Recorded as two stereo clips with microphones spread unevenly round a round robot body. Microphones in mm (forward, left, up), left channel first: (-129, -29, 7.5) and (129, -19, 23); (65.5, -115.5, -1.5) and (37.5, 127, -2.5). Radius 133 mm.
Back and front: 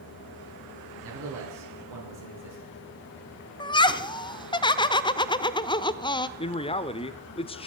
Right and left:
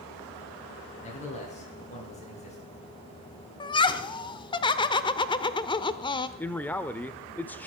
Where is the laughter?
135° right, 0.8 m.